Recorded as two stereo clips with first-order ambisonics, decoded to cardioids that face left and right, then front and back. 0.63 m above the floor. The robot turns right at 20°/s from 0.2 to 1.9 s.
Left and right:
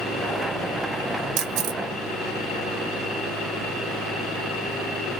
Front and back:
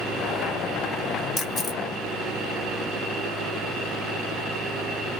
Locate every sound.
1.4 s a camera shutter: 80° right, 0.7 m; by 1.8 s 70° right, 0.7 m